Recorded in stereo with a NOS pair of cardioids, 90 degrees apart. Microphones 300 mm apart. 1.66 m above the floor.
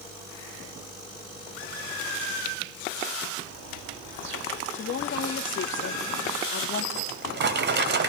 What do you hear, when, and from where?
3.4 s a bird: 65° right, 5 m
4.7 s a woman speaking: 40° left, 3 m
7.0 s a drawer: 40° right, 4 m